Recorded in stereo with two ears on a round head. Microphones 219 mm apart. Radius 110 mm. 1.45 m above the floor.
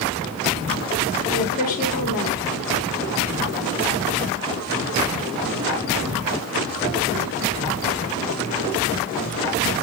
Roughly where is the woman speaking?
Left.